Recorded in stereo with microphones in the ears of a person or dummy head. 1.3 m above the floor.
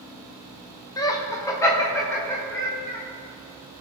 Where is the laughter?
15° left (ahead or behind), 0.7 m; by 3.0 s 10° left (ahead or behind), 2 m.